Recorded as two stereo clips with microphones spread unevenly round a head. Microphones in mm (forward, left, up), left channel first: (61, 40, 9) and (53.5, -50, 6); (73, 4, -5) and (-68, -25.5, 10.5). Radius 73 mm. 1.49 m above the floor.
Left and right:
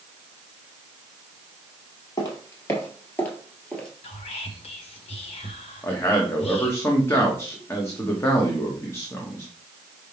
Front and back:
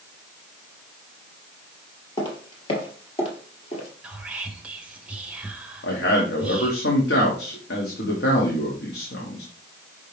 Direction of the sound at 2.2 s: 70° left.